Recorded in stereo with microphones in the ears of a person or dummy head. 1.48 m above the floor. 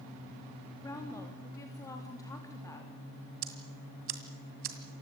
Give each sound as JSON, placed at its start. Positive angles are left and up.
{"t": 0.8, "sound": "a woman speaking", "side_deg": 15, "distance_m": 3.5}
{"t": 3.4, "sound": "ticking", "side_deg": -40, "distance_m": 2.0}